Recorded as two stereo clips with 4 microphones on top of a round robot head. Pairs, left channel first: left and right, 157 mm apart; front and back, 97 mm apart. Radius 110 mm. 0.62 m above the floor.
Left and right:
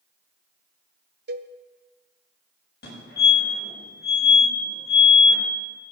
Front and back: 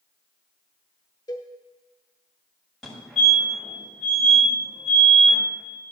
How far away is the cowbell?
About 0.5 m.